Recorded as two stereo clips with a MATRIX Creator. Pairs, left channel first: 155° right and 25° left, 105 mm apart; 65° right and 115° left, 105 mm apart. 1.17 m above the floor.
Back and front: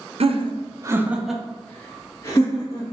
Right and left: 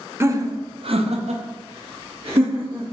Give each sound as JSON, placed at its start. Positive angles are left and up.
{"t": 0.2, "sound": "laughter", "azimuth_deg": 45, "distance_m": 0.6}